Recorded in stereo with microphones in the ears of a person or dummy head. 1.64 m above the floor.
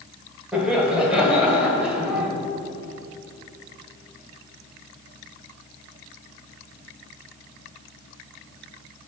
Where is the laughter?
5° right (ahead or behind), 1.3 m.